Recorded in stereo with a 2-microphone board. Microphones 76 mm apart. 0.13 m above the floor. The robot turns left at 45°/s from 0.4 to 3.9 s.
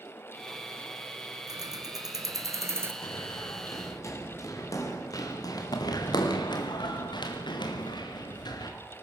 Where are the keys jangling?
75° right, 1.8 m; by 2.9 s 140° right, 1.8 m.